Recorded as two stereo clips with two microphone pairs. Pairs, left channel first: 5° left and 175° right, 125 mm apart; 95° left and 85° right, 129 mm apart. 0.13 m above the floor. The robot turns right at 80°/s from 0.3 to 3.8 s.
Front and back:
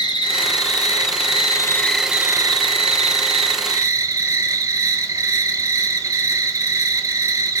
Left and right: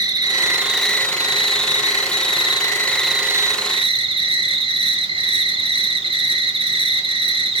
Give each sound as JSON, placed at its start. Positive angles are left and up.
{"t": 0.0, "sound": "an insect", "azimuth_deg": -35, "distance_m": 0.9}